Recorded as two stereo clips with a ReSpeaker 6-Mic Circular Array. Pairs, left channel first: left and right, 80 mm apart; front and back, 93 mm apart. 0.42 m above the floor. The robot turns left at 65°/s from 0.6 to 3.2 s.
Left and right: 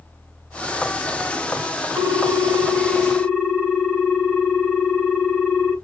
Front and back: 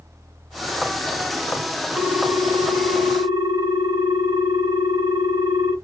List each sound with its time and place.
2.0 s a ringtone: 95° right, 0.9 m; by 5.7 s 175° right, 0.9 m